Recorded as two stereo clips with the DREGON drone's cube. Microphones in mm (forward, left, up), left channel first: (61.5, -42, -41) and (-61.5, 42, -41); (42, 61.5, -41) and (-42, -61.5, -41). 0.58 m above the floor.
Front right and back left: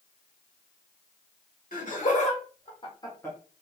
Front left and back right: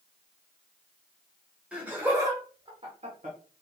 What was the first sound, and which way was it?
Laughter, 45° right.